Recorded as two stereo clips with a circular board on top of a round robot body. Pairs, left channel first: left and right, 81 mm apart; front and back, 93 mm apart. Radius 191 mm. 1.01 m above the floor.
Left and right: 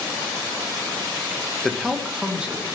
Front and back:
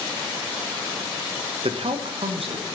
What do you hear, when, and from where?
1.6 s a man speaking: 175° left, 1.2 m; by 2.8 s 165° right, 2.5 m